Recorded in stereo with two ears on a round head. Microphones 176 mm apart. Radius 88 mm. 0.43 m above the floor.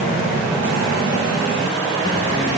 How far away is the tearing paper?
No tearing paper in this recording.